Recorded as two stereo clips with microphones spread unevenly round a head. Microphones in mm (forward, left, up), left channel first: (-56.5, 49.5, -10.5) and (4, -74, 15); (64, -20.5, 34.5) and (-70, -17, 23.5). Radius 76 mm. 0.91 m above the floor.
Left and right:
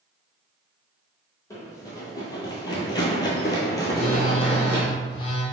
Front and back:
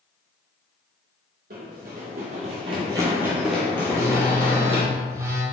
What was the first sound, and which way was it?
Running footsteps, 170° right.